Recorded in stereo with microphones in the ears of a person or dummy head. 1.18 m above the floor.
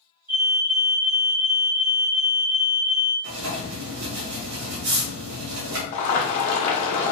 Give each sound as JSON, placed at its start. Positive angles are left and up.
{"t": 0.3, "sound": "a fire alarm", "side_deg": -5, "distance_m": 1.5}
{"t": 3.2, "sound": "writing", "side_deg": -65, "distance_m": 1.1}
{"t": 5.9, "sound": "boiling", "side_deg": 40, "distance_m": 0.9}